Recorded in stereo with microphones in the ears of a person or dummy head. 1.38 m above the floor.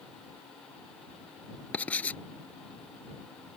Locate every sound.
1.7 s writing: 5° left (ahead or behind)